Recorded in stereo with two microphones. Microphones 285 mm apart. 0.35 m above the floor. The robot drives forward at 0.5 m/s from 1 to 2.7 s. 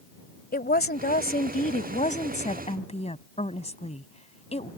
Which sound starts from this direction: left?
A woman speaking, at 0.5 s.